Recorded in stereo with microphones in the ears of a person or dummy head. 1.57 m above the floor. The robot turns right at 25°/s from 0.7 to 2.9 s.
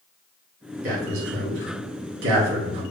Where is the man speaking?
65° right (ahead or behind), 1.9 m.